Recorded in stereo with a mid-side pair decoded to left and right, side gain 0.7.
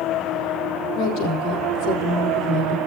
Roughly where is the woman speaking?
Ahead left.